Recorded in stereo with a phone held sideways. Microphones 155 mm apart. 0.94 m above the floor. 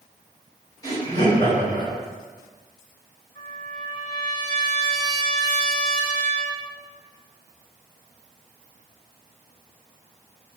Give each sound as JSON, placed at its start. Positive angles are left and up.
{"t": 0.8, "sound": "laughter", "side_deg": 25, "distance_m": 1.9}
{"t": 3.4, "sound": "a trumpet", "side_deg": 30, "distance_m": 1.6}